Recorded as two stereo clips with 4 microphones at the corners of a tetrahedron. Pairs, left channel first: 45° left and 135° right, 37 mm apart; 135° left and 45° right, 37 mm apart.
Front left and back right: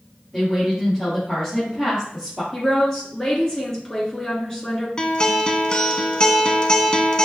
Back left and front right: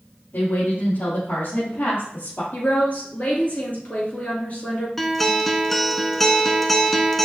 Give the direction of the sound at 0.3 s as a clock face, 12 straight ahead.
8 o'clock.